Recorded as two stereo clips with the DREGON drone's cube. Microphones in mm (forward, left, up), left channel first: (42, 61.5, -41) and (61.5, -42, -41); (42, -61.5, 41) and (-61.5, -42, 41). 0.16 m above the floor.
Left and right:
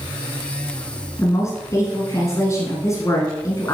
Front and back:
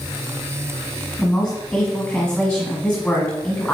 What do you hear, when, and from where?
1.2 s a woman speaking: 70° left, 1.3 m